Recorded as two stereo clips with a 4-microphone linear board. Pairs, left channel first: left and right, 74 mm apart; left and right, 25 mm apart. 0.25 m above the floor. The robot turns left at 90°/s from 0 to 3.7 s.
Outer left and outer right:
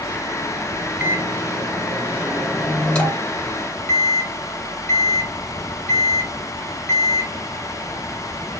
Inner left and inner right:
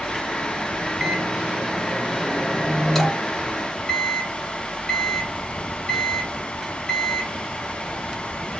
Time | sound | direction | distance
1.0 | a microwave | 30° right | 1.5 m